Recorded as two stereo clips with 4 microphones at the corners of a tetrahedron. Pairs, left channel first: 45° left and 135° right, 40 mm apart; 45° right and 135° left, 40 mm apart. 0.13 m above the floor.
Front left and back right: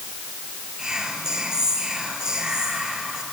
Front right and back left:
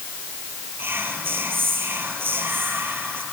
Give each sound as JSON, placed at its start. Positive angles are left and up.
{"t": 0.8, "sound": "whispering", "azimuth_deg": 155, "distance_m": 2.5}